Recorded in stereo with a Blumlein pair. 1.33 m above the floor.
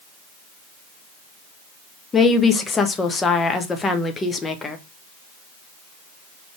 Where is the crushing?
No crushing in this recording.